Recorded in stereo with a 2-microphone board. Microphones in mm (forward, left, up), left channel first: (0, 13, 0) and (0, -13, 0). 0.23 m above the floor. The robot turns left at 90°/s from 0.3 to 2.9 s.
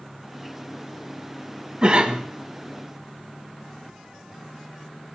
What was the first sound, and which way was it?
A cough, 65° right.